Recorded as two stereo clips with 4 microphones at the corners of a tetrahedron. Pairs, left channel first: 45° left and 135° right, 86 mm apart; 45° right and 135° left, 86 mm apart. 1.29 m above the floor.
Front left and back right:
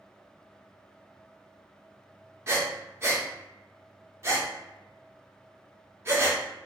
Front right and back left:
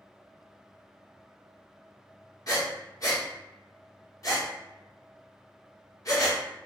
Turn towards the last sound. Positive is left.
turn(degrees=-80)